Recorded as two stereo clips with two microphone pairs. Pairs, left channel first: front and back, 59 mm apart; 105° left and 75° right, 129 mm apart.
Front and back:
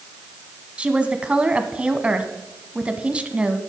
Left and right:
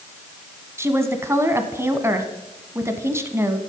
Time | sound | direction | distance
0.8 | a woman speaking | 130° right | 1.1 m